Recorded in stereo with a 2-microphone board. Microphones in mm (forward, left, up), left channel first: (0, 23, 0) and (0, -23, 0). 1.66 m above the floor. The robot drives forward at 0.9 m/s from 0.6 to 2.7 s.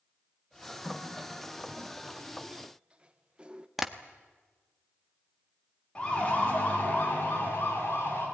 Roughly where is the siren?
Left.